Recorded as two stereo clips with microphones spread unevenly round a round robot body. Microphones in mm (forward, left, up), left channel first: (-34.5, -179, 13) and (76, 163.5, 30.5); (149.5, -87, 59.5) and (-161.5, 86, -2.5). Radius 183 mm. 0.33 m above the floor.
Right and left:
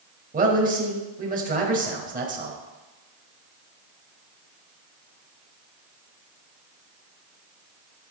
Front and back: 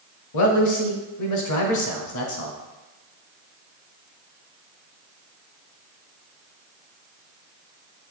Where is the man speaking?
5° left, 1.5 m.